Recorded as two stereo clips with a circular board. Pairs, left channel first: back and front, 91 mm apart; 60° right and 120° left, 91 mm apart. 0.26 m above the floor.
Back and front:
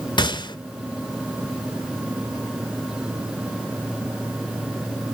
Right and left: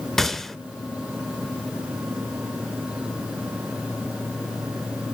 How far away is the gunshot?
About 0.6 m.